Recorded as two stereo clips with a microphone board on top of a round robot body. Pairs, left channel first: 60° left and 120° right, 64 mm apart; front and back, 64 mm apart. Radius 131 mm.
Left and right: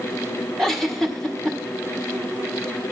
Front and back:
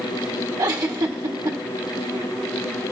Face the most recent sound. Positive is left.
turn(degrees=145)